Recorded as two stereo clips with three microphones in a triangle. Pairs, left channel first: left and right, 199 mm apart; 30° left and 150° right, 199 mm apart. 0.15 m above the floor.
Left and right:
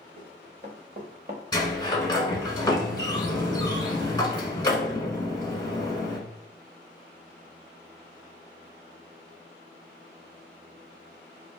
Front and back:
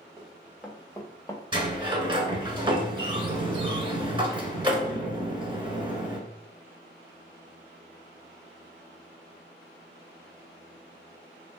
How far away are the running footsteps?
About 1.6 m.